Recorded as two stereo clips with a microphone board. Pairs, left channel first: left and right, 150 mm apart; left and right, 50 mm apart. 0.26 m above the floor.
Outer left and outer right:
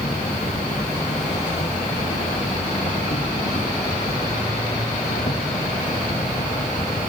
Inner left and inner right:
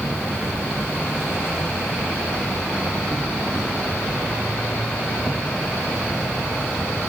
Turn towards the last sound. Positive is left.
turn(degrees=50)  # may be behind; listen again after turning